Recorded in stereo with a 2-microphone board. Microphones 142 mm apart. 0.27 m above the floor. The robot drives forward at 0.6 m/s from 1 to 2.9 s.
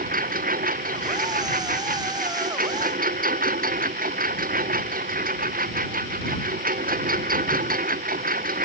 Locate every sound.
0.0 s a lawn mower: 85° right